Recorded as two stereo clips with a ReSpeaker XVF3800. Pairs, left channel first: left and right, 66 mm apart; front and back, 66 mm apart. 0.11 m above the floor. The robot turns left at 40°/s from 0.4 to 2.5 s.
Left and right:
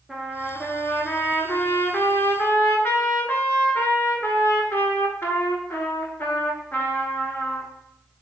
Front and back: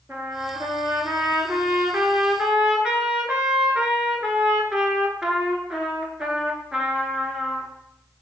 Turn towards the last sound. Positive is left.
turn(degrees=105)